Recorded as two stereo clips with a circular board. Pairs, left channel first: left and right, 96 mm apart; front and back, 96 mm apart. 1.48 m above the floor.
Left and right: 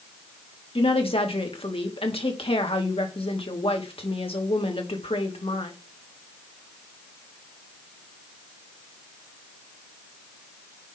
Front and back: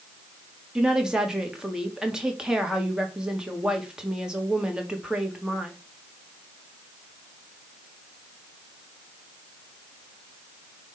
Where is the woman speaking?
100° left, 2.5 m.